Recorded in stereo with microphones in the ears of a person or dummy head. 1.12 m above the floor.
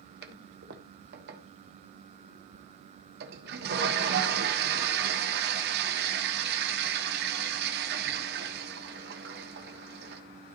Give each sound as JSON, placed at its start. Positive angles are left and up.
{"t": 0.2, "sound": "a toilet flushing", "side_deg": -55, "distance_m": 1.2}